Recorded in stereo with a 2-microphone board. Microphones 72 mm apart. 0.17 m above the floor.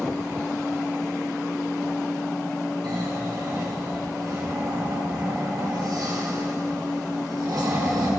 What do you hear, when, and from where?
2.8 s snoring: 70° right (ahead or behind), 5.5 m